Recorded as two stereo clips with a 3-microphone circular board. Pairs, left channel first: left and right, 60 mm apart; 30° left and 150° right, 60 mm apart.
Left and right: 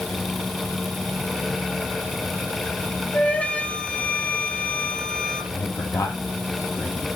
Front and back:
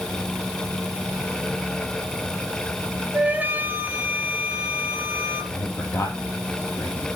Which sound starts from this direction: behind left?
A flute, at 3.1 s.